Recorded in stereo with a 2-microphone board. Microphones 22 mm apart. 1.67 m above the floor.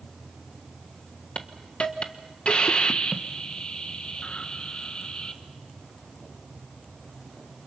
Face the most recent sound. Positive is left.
turn(degrees=45)  # may be behind; listen again after turning